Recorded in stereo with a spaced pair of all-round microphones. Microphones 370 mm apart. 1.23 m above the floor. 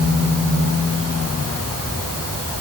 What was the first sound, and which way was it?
Only background noise.